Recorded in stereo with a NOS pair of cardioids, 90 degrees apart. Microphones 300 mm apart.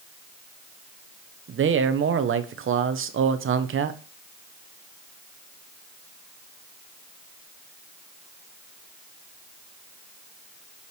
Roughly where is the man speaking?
Ahead right.